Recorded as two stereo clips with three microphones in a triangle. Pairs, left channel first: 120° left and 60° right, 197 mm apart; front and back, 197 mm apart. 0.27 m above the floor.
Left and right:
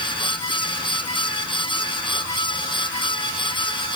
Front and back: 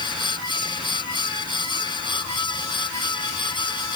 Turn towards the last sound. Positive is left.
No sound to turn to.